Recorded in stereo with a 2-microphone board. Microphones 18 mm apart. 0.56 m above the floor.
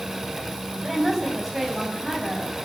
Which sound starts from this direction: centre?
A woman speaking, at 0.8 s.